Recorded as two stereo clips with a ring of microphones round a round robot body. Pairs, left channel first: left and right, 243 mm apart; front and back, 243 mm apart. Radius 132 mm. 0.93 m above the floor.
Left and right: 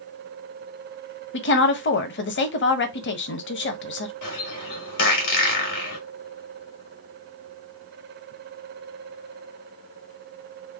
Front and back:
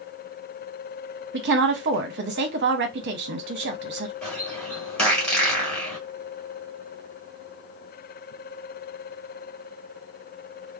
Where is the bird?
85° left, 1.5 m.